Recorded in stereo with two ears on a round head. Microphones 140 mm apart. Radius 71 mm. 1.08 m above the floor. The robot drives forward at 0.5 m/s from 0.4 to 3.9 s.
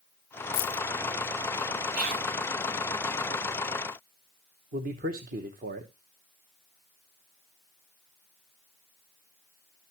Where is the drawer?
I don't hear a drawer.